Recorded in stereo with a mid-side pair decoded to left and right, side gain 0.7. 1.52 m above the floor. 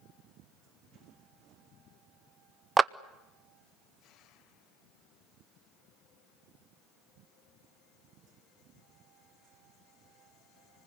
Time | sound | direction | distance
2.8 | a clap | 20° right | 0.6 m